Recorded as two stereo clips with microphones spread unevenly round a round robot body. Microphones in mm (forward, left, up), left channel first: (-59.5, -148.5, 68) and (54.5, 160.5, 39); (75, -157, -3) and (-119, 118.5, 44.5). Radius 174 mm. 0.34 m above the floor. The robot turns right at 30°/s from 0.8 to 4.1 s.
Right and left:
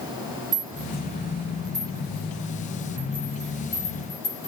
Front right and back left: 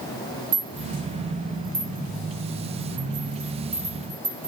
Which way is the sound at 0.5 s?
95° left.